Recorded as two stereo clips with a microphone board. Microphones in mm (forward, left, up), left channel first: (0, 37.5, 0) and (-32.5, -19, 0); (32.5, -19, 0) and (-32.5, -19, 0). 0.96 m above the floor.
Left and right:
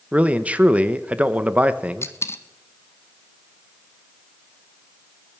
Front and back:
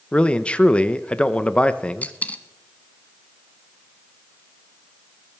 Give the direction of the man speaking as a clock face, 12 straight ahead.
2 o'clock.